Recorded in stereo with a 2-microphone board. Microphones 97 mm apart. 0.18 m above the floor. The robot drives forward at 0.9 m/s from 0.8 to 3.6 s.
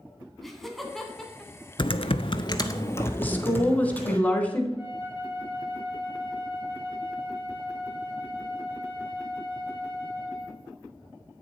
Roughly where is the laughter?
Centre.